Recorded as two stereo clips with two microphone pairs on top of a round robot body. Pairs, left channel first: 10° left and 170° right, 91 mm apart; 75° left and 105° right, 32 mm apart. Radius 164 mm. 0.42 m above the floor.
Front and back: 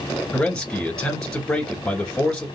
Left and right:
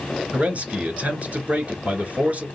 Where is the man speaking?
65° right, 1.9 m.